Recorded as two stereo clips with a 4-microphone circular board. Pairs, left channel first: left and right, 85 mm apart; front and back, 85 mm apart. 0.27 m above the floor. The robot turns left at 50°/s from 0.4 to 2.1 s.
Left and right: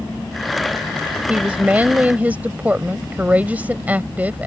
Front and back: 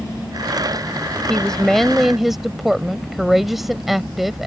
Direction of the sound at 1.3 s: 55° right.